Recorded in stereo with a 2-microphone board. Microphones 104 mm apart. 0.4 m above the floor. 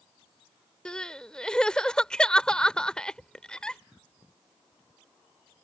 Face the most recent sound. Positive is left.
turn(degrees=10)  # may be behind; listen again after turning